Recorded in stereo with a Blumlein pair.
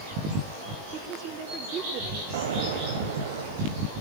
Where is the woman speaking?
30° right, 3 m.